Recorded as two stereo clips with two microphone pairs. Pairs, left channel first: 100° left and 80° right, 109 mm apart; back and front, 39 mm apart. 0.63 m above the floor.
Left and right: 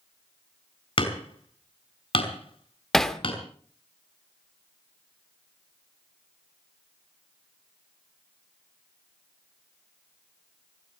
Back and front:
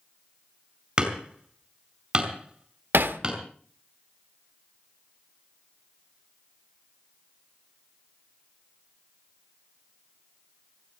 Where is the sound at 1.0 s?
65° left, 4.5 m.